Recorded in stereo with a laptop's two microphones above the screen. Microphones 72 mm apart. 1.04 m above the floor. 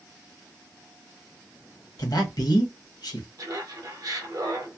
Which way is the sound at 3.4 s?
60° right (ahead or behind).